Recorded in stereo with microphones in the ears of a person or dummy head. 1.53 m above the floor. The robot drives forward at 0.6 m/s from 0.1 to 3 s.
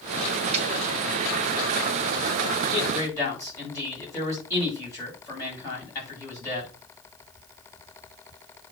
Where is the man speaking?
20° left (ahead or behind), 7.5 m.